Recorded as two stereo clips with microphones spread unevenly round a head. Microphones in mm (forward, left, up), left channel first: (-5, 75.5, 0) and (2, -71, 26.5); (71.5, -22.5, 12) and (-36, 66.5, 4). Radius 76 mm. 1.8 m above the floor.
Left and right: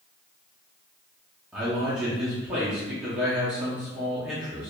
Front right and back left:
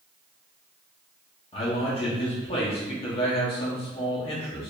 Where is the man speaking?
10° right, 0.9 m.